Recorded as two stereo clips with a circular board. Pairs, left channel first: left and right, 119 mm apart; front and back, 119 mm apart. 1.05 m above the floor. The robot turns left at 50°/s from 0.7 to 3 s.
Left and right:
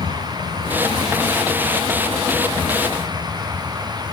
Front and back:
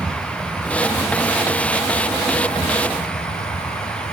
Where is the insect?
100° left, 2.5 m; by 4.1 s 15° right, 2.5 m.